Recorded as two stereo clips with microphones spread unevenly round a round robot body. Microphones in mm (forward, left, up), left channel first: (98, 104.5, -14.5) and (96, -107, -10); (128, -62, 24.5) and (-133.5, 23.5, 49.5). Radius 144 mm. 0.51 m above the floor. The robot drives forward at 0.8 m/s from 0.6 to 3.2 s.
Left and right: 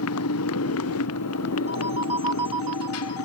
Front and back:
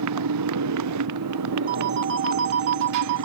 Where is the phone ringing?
145° right; by 3.2 s 170° right.